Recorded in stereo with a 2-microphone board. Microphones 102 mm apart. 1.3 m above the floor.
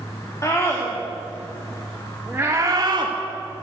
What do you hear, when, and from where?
0.4 s a scream: 30° left (ahead or behind), 3 m; by 3.1 s 50° right (ahead or behind), 1.7 m